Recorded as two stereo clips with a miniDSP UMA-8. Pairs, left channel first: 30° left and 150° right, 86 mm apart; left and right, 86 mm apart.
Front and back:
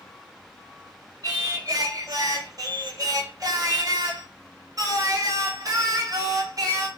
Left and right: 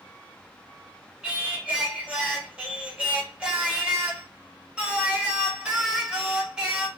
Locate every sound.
1.2 s singing: 165° right, 1.1 m